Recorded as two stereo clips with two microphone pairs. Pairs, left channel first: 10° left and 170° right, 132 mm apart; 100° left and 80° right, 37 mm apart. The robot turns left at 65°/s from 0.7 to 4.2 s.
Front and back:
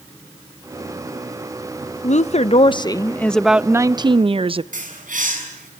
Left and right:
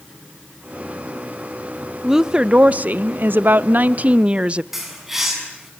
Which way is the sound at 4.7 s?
160° right.